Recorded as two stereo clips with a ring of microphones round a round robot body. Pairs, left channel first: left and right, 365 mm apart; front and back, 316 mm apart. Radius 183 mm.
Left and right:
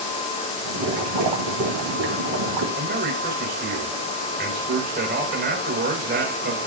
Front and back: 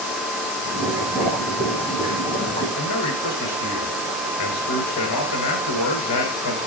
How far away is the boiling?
About 3 m.